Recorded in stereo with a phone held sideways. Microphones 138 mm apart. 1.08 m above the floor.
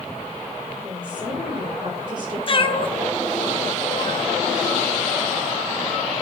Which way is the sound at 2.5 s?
40° left (ahead or behind).